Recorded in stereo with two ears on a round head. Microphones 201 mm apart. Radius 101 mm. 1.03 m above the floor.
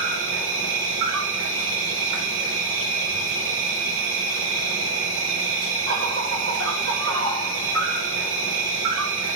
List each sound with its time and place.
0.0 s an insect: 60° right (ahead or behind), 3.5 m